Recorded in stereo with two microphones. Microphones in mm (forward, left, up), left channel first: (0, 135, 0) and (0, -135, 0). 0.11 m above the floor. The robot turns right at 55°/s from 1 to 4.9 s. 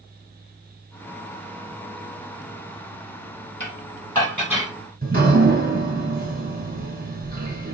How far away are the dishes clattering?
About 2.5 m.